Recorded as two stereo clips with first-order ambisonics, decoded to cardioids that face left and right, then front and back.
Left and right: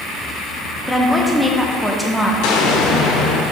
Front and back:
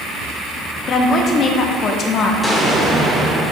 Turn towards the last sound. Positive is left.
turn(degrees=90)